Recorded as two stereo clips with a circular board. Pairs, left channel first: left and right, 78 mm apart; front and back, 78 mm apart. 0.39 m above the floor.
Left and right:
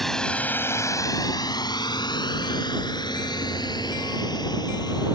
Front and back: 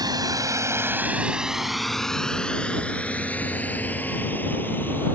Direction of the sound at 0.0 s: 175° left.